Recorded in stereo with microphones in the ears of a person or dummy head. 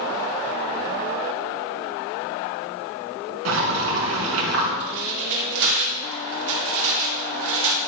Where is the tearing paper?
55° right (ahead or behind), 4.5 m.